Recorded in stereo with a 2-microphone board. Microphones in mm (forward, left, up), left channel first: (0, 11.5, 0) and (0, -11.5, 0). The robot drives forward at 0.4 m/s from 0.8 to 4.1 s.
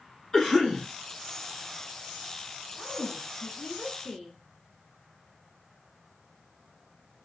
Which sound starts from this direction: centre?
A cough, at 0.3 s.